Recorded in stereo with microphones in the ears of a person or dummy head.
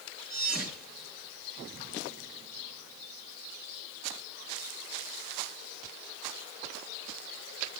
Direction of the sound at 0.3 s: 10° right (ahead or behind).